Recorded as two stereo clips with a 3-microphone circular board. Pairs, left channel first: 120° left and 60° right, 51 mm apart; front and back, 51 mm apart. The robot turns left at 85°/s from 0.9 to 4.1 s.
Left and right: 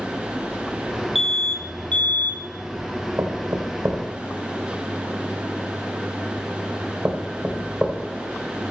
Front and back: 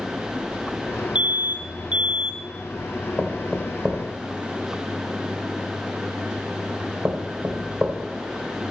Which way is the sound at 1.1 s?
145° right.